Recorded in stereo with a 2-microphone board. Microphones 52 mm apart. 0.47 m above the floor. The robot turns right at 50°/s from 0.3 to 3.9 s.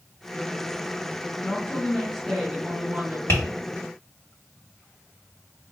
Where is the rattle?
I don't hear a rattle.